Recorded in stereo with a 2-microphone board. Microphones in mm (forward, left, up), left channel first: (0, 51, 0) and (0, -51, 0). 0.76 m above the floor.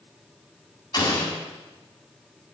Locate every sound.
0.9 s an explosion: 45° left (ahead or behind), 4.5 m